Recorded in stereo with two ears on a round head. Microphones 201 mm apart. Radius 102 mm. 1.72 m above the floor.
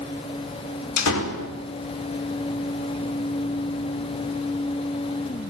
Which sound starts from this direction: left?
A door slam, at 1.0 s.